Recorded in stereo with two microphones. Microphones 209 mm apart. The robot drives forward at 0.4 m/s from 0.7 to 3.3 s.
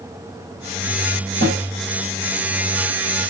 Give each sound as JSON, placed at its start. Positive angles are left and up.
{"t": 1.4, "sound": "a snare drum", "side_deg": -60, "distance_m": 4.5}